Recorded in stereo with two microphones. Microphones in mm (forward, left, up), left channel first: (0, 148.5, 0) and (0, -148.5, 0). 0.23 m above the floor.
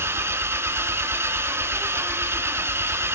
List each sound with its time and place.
0.0 s an engine running: 10° right (ahead or behind), 1.1 m